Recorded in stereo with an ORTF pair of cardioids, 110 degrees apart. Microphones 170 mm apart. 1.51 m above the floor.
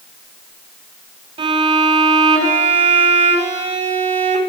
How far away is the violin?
About 5.5 m.